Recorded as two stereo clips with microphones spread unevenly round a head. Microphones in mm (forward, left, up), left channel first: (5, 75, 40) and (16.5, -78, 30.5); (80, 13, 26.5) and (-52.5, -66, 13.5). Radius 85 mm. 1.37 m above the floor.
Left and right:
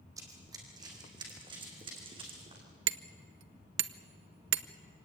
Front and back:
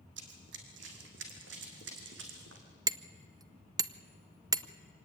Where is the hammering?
80° right, 0.7 m.